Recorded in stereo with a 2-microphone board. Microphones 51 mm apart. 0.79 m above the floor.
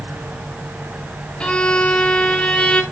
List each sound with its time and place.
1.4 s a violin: 20° left (ahead or behind), 1.2 m